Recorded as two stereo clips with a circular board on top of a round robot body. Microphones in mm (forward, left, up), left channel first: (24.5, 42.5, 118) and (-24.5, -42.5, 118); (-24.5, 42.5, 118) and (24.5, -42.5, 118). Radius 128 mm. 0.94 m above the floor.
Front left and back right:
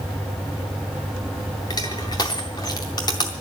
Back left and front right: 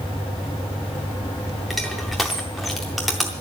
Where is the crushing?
30° left, 0.5 m.